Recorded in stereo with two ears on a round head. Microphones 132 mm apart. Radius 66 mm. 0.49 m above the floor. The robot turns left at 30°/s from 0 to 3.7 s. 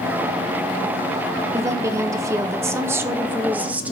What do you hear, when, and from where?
1.5 s a woman speaking: 20° right (ahead or behind), 0.7 m; by 3.9 s 10° right (ahead or behind), 0.7 m